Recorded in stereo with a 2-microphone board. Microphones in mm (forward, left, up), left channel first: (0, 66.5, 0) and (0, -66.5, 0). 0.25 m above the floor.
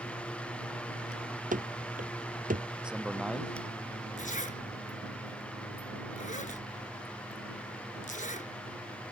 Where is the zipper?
75° left (ahead or behind).